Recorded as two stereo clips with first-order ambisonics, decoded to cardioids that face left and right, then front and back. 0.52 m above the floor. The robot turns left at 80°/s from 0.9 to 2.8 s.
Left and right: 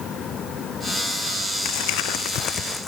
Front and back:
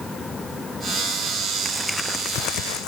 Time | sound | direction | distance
1.6 | crumpling | 105° left | ?